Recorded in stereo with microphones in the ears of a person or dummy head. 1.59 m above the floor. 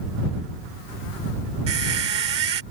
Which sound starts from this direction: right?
A squeak, at 1.7 s.